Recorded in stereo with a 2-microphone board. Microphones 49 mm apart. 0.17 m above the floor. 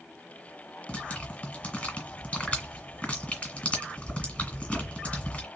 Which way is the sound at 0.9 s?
25° left (ahead or behind).